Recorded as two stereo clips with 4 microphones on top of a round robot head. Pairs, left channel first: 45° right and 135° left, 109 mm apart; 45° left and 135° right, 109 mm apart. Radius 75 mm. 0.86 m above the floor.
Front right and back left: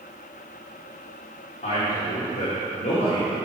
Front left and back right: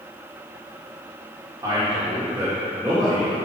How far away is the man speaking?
About 2.5 m.